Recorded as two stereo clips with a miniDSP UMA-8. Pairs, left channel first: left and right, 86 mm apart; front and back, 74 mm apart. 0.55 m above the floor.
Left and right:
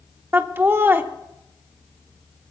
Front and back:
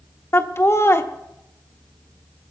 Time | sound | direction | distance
0.3 | laughter | 35° right | 0.9 m